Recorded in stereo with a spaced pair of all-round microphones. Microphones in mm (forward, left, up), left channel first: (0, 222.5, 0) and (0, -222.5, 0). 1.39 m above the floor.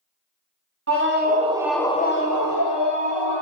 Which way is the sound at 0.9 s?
30° right (ahead or behind).